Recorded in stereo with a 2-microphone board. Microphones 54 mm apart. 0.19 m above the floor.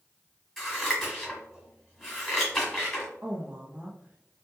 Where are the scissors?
5° left (ahead or behind), 1.7 m.